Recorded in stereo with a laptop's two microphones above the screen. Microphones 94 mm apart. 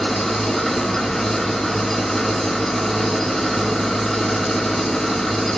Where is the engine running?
5° left (ahead or behind), 0.9 m.